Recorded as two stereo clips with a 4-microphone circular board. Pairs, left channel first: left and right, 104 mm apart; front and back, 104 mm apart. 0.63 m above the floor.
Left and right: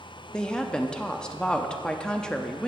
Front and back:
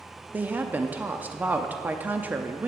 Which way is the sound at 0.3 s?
155° left.